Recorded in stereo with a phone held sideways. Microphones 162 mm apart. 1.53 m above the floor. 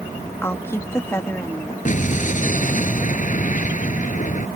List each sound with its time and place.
0.4 s a woman speaking: 15° left (ahead or behind)
1.9 s an explosion: 50° left (ahead or behind)